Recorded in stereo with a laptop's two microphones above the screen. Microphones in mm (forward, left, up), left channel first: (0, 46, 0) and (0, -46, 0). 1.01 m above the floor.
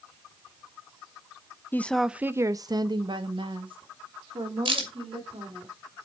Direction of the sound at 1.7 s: 20° left (ahead or behind).